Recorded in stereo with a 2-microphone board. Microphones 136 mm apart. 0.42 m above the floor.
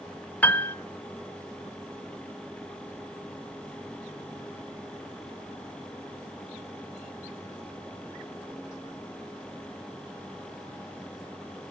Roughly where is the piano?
Centre.